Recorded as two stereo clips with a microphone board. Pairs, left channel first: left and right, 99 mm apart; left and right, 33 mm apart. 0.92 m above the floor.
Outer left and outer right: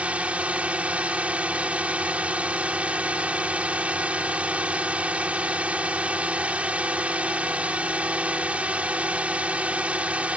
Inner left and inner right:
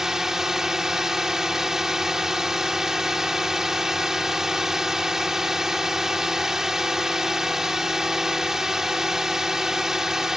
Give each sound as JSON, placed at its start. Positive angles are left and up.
{"t": 0.0, "sound": "a drone", "side_deg": -15}